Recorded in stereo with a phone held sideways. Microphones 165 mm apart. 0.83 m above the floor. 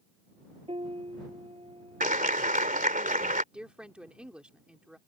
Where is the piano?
35° right (ahead or behind).